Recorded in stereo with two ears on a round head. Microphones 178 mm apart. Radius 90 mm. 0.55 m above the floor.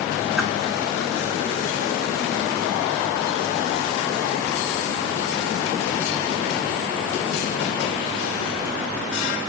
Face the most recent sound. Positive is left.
turn(degrees=0)  # may be behind; listen again after turning